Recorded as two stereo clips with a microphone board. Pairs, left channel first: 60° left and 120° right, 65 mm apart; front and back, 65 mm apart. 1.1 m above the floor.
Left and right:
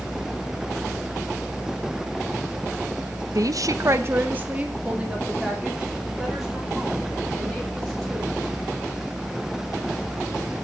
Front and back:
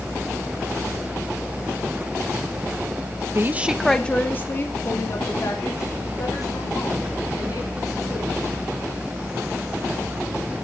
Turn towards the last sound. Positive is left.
turn(degrees=-35)